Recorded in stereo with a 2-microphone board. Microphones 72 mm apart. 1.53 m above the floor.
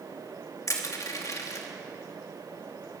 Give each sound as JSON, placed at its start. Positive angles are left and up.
{"t": 0.7, "sound": "crushing", "side_deg": 50, "distance_m": 2.5}